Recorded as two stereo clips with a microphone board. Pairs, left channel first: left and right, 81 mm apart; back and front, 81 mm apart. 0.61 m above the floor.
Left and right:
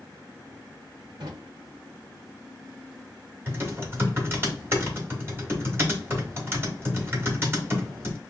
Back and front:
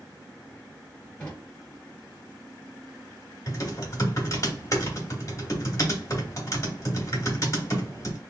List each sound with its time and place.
1.2 s a drawer: 100° right, 1.0 m
3.5 s typing on a keyboard: 140° right, 1.1 m